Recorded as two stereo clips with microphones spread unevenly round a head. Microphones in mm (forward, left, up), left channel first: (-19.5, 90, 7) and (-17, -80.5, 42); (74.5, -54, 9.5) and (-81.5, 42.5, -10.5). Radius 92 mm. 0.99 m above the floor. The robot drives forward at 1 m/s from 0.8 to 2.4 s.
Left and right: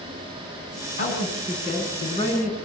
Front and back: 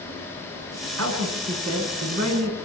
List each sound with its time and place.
1.0 s a man speaking: 135° left, 9 m; by 2.6 s 140° left, 10 m